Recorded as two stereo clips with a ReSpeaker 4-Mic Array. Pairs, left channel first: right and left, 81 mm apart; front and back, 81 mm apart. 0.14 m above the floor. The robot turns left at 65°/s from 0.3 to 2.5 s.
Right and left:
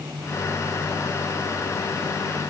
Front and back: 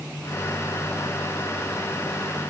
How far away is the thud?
No thud in this recording.